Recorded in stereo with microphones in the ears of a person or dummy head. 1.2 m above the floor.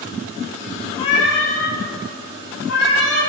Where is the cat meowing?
25° left (ahead or behind), 0.6 m; by 3.2 s 80° left, 2.5 m.